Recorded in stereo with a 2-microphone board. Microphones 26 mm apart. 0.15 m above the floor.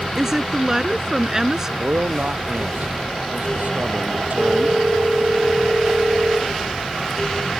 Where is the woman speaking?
20° right (ahead or behind).